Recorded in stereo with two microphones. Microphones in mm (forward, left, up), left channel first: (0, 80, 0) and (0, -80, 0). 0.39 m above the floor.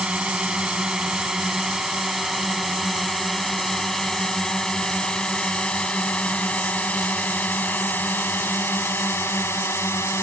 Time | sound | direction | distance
0.0 | a drone | 5° right (ahead or behind) | ?